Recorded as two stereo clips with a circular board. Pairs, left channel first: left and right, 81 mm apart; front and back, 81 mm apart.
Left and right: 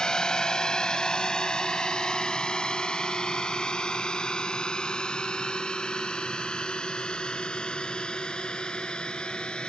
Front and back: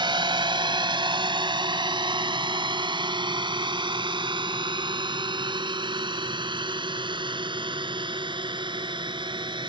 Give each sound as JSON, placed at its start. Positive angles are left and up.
{"t": 0.0, "sound": "a drone", "azimuth_deg": 170}